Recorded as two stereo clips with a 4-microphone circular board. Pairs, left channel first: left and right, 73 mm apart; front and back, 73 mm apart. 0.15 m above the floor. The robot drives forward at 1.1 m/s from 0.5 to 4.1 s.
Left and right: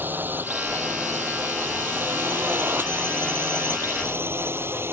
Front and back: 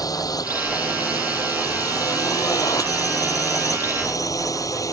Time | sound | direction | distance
0.0 | a drone | 25° right | ?